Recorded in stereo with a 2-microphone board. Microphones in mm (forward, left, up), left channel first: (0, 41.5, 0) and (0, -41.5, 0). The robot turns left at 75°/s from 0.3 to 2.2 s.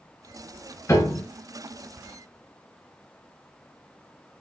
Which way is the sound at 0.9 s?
40° left (ahead or behind).